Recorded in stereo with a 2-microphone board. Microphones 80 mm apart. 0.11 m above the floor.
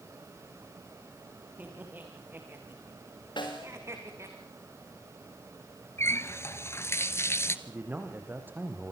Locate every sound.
1.6 s laughter: 20° right (ahead or behind), 7.5 m; by 4.4 s 40° right (ahead or behind), 7.5 m
3.4 s a snare drum: 70° left (ahead or behind), 5.5 m
6.0 s a running tap: 35° left (ahead or behind), 1.2 m
7.7 s a man speaking: 25° right (ahead or behind), 5 m